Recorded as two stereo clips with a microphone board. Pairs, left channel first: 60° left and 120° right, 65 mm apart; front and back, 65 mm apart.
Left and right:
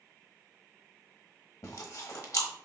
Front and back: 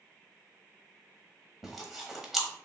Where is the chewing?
95° left, 0.9 m.